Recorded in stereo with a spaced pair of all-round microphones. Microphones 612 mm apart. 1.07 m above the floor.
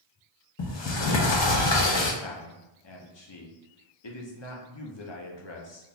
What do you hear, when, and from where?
0.6 s a sliding door: 50° left (ahead or behind), 0.6 m
2.2 s a man speaking: 45° left (ahead or behind), 0.7 m